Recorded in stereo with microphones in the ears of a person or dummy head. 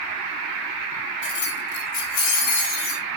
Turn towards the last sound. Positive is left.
turn(degrees=30)  # may be behind; listen again after turning